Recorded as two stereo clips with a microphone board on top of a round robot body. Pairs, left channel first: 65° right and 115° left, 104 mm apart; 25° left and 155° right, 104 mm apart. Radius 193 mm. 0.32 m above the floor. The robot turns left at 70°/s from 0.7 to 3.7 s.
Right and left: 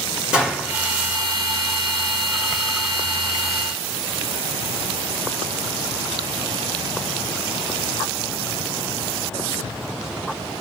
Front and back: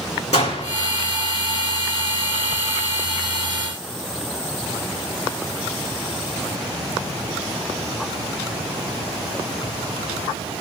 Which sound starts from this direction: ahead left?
A gunshot, at 0.3 s.